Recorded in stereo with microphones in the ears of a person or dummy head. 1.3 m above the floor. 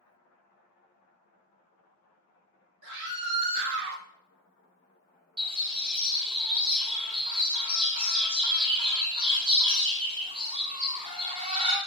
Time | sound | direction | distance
2.8 | a scream | 60° right (ahead or behind) | 1.2 m
5.4 | a bird | 25° right (ahead or behind) | 0.6 m